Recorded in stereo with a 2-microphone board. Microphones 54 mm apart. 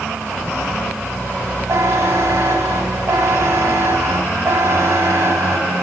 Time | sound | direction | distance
1.7 | a buzzer | 60° right (ahead or behind) | 2.5 m